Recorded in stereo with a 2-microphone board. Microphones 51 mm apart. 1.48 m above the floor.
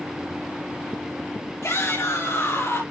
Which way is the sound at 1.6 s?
65° left (ahead or behind).